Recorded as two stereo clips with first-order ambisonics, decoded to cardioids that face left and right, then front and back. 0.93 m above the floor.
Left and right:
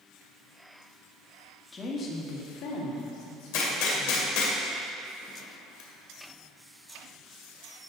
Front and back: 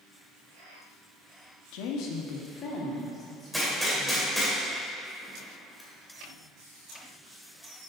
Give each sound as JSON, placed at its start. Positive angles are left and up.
{"t": 1.7, "sound": "a woman speaking", "azimuth_deg": 15, "distance_m": 1.1}
{"t": 3.5, "sound": "a gunshot", "azimuth_deg": 90, "distance_m": 2.0}